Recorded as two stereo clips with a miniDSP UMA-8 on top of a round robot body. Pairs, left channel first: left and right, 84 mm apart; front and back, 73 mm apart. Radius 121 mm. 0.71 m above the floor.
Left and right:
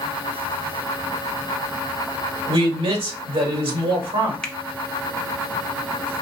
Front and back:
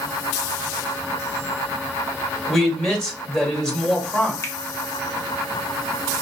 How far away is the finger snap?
About 1.1 m.